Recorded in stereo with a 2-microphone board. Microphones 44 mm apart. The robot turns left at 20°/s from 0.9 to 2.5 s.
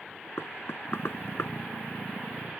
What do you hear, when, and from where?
0.4 s knocking: 65° left (ahead or behind); by 1.5 s 70° left (ahead or behind)